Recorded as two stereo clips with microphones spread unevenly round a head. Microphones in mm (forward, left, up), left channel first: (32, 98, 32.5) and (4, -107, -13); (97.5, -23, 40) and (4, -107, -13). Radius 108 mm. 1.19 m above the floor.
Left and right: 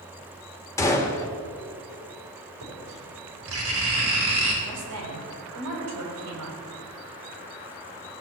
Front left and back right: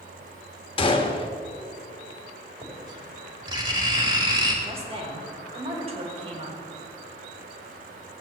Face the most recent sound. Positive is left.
turn(degrees=-95)